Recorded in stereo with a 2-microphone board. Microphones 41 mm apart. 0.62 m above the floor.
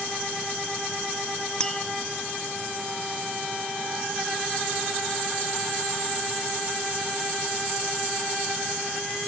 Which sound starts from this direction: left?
Tapping, at 1.6 s.